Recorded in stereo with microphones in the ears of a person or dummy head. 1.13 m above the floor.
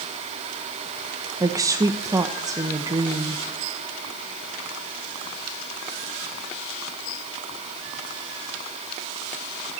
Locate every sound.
1.4 s a woman speaking: 20° right (ahead or behind), 0.9 m